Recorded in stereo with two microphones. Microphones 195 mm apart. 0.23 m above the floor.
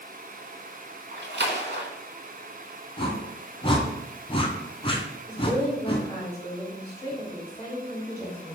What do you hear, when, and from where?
1.1 s a splash: 60° right (ahead or behind), 0.7 m
3.0 s a whoosh: 30° left (ahead or behind), 0.6 m
5.3 s a woman speaking: 25° left (ahead or behind), 1.5 m